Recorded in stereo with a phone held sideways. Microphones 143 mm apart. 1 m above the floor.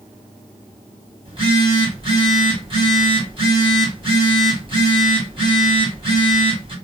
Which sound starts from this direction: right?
A phone buzzing, at 1.2 s.